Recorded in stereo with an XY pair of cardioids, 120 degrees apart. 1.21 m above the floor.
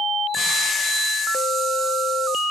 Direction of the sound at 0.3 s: 25° left.